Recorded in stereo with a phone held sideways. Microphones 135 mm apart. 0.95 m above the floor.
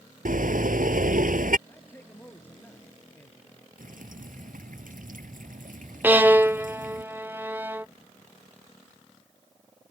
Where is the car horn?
85° right.